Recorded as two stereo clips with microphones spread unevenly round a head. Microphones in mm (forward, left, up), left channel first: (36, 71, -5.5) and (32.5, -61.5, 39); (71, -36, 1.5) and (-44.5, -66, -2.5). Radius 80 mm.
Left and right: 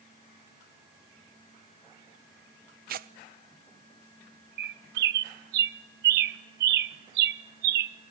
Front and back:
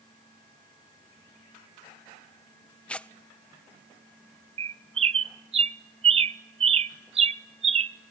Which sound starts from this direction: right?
Tearing paper, at 2.9 s.